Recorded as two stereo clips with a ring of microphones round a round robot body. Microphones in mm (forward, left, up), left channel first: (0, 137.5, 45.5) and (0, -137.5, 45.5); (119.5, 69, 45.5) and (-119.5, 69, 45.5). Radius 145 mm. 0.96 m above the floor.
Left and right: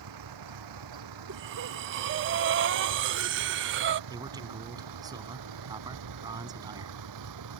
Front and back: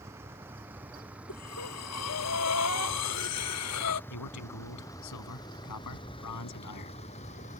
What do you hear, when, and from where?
0.0 s a vehicle: 100° right; by 7.6 s 65° right
1.3 s breathing: 40° right
4.1 s a man speaking: 15° right